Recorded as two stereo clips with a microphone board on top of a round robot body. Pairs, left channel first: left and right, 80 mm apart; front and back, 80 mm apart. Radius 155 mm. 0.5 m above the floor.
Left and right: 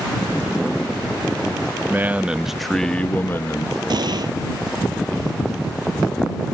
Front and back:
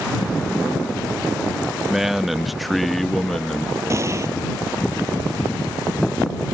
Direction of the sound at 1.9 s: 100° right.